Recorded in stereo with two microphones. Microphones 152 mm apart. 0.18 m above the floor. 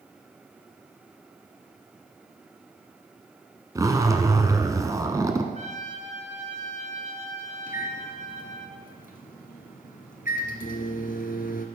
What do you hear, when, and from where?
3.8 s a zipper: 20° right (ahead or behind), 1.3 m
5.5 s a trumpet: 50° right (ahead or behind), 2.5 m
7.7 s a microwave: 60° left (ahead or behind), 1.9 m